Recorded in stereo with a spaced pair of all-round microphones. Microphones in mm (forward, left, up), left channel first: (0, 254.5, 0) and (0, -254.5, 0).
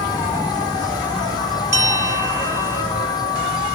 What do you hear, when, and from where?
0.0 s an insect: 10° left (ahead or behind)
1.7 s a bell: 40° right (ahead or behind)